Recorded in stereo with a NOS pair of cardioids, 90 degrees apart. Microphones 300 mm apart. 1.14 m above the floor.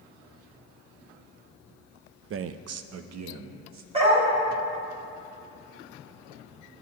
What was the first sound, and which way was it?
A man speaking, 45° right.